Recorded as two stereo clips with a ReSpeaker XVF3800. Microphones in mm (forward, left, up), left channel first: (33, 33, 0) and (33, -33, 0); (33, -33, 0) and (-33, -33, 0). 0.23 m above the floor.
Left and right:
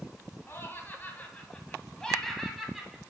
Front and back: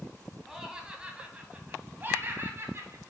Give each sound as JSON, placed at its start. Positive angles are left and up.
{"t": 0.5, "sound": "laughter", "azimuth_deg": 105, "distance_m": 1.5}